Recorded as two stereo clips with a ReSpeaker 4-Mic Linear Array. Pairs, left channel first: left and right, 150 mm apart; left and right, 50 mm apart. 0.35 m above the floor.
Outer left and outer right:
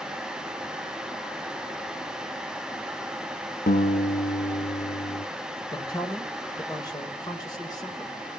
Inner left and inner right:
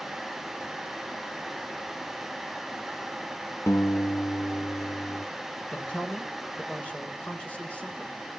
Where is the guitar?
75° left (ahead or behind), 1.2 m.